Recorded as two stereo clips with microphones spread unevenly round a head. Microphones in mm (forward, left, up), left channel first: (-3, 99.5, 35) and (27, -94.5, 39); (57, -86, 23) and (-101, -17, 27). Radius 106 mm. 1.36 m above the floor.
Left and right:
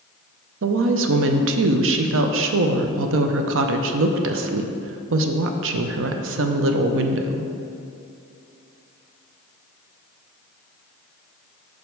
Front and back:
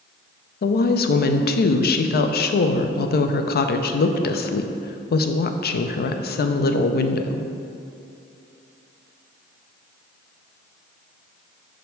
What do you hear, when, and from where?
0.6 s a woman speaking: 55° right, 0.5 m